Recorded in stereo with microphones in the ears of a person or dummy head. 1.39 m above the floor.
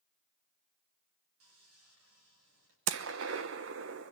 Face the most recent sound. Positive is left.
turn(degrees=-65)  # may be behind; listen again after turning